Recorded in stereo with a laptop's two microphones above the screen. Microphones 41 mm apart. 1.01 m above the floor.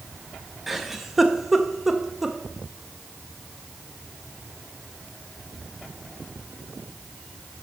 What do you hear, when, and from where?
0.7 s a giggle: 10° right (ahead or behind), 0.6 m